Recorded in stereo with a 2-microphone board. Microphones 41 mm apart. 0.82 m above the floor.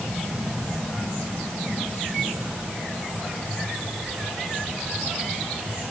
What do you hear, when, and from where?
Only background noise.